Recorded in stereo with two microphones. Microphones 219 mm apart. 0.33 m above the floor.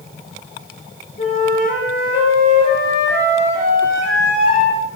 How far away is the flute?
About 6 m.